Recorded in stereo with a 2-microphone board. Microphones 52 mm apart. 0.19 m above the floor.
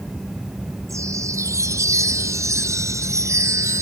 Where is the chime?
75° right (ahead or behind).